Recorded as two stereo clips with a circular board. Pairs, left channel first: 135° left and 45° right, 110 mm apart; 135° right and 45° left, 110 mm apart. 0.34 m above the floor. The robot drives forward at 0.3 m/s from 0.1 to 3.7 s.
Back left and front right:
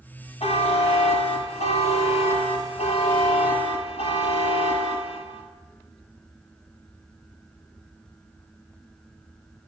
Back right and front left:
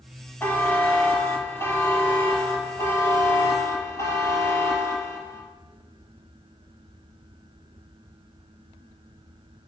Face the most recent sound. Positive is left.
turn(degrees=165)